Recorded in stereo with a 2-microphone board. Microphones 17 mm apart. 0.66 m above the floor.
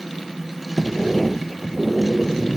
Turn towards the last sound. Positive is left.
turn(degrees=0)  # may be behind; listen again after turning